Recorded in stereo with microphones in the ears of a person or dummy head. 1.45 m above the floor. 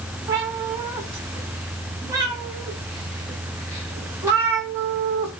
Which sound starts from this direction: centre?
A cat meowing, at 0.3 s.